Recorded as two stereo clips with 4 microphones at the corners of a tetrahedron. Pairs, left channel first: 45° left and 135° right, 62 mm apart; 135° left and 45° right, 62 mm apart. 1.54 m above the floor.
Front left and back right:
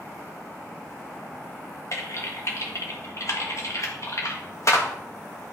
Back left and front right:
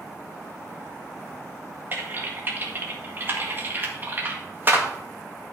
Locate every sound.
1.9 s typing on a keyboard: 10° left, 1.7 m